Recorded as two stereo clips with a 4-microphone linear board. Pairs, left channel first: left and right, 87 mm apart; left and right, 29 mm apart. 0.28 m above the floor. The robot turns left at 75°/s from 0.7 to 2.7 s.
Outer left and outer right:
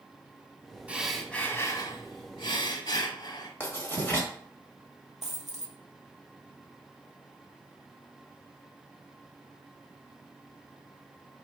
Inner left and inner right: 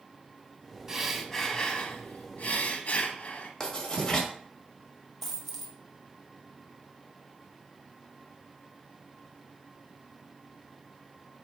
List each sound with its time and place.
0.9 s breathing: 160° right, 0.8 m; by 3.5 s 65° left, 0.8 m
3.6 s writing: 20° left (ahead or behind), 1.4 m
5.2 s a dropped coin: 5° right (ahead or behind), 1.3 m